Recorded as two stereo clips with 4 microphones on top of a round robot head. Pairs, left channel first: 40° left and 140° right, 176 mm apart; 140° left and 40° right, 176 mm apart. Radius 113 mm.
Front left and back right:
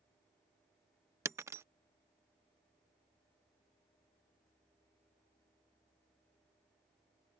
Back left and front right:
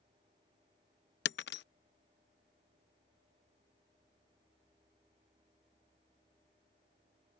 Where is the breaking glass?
150° left.